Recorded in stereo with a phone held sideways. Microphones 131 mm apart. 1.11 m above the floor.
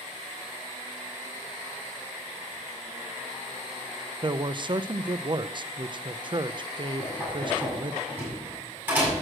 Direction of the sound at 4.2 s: 40° right (ahead or behind).